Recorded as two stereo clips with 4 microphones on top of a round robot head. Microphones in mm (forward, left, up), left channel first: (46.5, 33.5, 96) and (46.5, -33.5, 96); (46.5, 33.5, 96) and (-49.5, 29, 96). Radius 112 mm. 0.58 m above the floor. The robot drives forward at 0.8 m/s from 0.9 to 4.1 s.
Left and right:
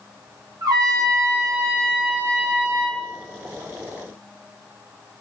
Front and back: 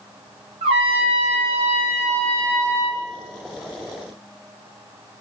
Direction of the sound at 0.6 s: 140° right.